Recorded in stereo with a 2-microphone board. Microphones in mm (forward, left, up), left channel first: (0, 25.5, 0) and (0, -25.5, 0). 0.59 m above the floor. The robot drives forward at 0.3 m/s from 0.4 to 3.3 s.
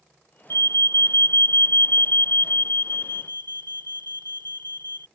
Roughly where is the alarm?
Left.